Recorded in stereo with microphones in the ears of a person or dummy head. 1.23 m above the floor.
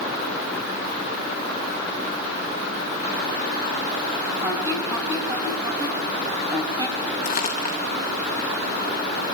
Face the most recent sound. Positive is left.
turn(degrees=35)  # may be behind; listen again after turning